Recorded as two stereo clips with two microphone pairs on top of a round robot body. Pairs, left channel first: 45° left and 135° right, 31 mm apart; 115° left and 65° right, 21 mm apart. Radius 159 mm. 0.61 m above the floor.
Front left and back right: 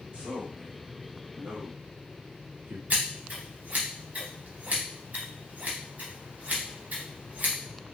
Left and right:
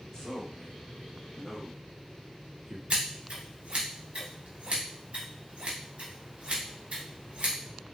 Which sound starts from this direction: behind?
A man speaking, at 0.1 s.